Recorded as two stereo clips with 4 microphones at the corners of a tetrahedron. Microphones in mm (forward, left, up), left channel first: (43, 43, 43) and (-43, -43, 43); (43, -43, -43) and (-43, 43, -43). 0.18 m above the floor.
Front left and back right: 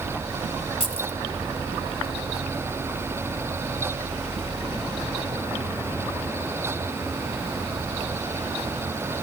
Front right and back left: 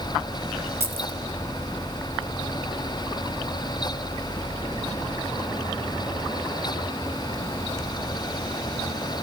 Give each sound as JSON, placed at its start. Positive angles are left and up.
{"t": 0.8, "sound": "keys jangling", "azimuth_deg": 70, "distance_m": 1.5}